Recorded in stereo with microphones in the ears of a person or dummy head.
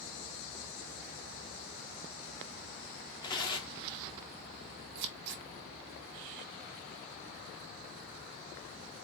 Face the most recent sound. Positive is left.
turn(degrees=-65)  # may be behind; listen again after turning